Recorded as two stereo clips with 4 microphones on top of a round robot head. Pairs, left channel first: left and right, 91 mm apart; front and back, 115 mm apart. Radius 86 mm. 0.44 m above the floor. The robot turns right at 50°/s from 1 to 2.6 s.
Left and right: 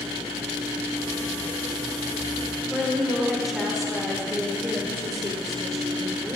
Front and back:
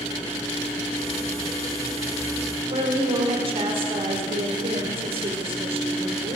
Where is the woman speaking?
Straight behind, 1.6 m.